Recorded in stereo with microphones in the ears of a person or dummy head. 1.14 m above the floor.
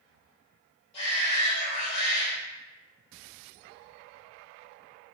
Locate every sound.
0.9 s a shout: 30° left (ahead or behind), 1.3 m